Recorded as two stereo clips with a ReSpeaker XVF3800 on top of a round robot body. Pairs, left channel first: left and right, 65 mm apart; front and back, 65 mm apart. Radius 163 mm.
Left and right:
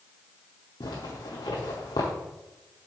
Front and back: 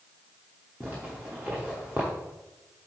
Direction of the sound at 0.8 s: 105° left.